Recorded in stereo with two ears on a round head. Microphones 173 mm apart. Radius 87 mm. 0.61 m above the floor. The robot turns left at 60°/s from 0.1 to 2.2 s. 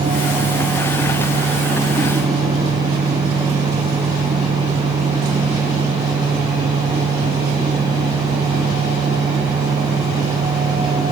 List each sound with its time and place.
Only background noise.